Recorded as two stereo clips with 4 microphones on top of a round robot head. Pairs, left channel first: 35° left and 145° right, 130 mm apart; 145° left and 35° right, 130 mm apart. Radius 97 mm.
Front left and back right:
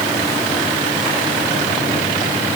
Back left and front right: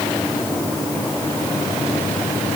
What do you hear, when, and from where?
Only background noise.